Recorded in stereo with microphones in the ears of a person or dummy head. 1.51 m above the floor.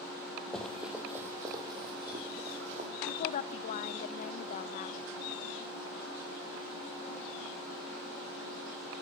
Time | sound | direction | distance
0.5 | running footsteps | centre (ahead or behind) | 2 m
3.1 | a woman speaking | 50° left (ahead or behind) | 0.5 m